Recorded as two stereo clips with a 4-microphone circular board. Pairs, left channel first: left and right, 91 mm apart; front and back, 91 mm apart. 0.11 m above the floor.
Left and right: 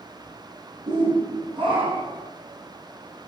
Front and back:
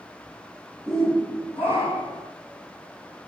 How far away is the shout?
About 4.5 m.